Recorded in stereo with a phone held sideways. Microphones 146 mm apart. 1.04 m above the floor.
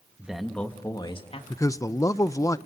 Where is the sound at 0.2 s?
10° right (ahead or behind), 1.7 m; by 1.4 s 45° left (ahead or behind), 1.9 m.